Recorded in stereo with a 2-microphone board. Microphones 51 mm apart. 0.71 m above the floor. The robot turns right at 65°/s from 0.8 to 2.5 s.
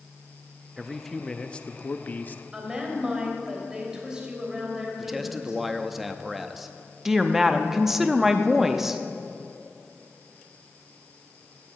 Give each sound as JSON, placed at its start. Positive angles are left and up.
{"t": 0.8, "sound": "a man speaking", "azimuth_deg": -10, "distance_m": 0.5}
{"t": 2.5, "sound": "a woman speaking", "side_deg": -10, "distance_m": 3.5}
{"t": 5.0, "sound": "a man speaking", "side_deg": -5, "distance_m": 0.6}
{"t": 7.0, "sound": "a woman speaking", "side_deg": -5, "distance_m": 0.7}